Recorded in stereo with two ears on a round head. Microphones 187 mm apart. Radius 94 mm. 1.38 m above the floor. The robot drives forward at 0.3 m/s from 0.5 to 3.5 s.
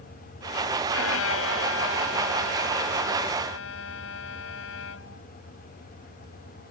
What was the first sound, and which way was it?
A violin, 75° left (ahead or behind).